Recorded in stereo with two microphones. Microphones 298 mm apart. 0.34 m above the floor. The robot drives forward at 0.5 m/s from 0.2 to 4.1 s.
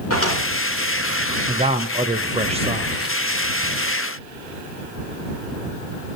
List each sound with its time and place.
0.1 s a drawer: 50° left (ahead or behind), 3 m
1.5 s a man speaking: 20° right (ahead or behind), 0.9 m; by 3.1 s 15° right (ahead or behind), 1.0 m